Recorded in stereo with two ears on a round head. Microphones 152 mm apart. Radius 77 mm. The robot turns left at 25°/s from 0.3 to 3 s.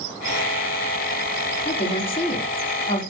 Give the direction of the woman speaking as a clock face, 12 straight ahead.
9 o'clock.